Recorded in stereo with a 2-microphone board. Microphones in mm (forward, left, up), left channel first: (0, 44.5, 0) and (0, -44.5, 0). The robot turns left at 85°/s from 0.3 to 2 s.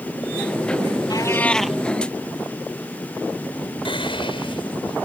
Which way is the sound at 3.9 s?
75° left (ahead or behind).